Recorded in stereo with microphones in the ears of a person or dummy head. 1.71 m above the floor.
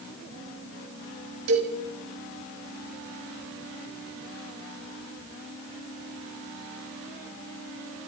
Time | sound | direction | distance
1.5 | a cowbell | 80° right | 7 m